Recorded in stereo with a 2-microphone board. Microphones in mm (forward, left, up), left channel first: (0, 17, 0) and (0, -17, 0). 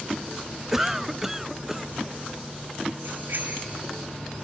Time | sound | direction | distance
0.7 | a cough | 5° right (ahead or behind) | 0.5 m
3.0 | a bicycle bell | 75° right (ahead or behind) | 6 m